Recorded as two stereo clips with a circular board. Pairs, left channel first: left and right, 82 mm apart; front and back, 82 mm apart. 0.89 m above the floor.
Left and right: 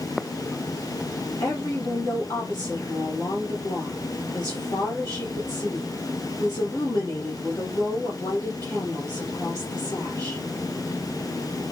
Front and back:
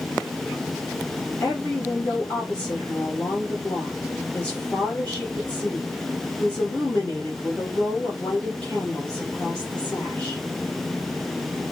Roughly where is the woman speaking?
Ahead left.